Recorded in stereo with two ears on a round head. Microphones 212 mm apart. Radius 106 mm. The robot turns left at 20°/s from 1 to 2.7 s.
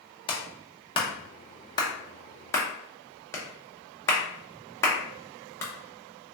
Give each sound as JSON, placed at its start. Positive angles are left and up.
{"t": 0.3, "sound": "a clap", "side_deg": 20, "distance_m": 0.6}